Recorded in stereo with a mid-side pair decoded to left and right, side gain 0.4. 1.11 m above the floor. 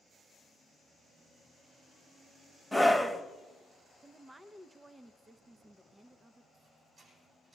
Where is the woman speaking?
20° right, 0.7 m.